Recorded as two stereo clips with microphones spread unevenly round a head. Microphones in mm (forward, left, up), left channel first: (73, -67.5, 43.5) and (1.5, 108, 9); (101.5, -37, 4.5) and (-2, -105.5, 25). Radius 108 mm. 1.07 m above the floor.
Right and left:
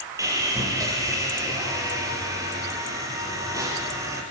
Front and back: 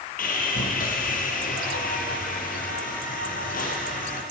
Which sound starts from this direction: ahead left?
Sawing, at 0.2 s.